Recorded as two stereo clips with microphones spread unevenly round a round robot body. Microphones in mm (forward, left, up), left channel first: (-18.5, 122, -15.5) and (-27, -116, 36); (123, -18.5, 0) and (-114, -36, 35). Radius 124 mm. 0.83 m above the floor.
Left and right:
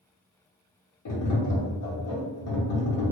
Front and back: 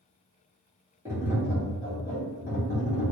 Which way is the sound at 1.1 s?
100° left.